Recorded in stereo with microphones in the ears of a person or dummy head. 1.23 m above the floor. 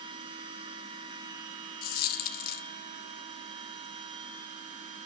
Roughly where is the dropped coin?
Left.